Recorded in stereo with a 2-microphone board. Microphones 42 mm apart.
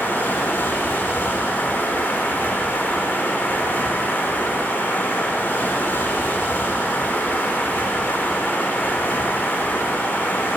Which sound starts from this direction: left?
Running water, at 0.0 s.